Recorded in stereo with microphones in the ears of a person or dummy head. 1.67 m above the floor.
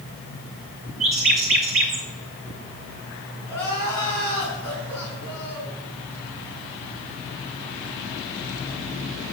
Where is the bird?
25° right (ahead or behind), 0.8 m.